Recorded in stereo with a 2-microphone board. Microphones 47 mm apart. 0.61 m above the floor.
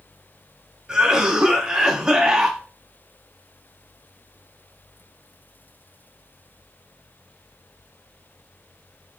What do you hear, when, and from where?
0.9 s a cough: 15° right (ahead or behind), 0.7 m